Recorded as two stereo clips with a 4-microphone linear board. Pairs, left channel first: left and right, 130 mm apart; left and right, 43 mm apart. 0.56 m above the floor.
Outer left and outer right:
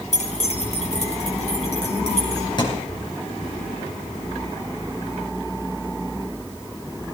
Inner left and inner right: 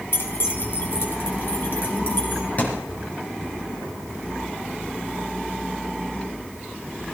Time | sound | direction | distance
0.1 | keys jangling | 60° left (ahead or behind) | 1.9 m
2.6 | a thud | 35° left (ahead or behind) | 3 m